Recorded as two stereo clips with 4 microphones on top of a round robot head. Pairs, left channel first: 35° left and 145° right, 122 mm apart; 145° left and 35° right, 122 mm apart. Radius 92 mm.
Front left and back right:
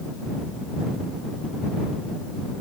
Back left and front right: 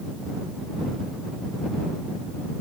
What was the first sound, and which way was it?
Only background noise.